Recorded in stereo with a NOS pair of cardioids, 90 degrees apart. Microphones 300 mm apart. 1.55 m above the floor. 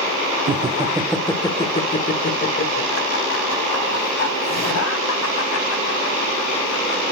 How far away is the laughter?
About 1.3 m.